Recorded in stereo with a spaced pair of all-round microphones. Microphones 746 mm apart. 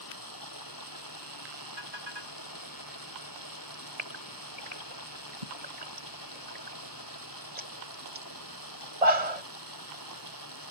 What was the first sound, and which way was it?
Running water, 25° left (ahead or behind).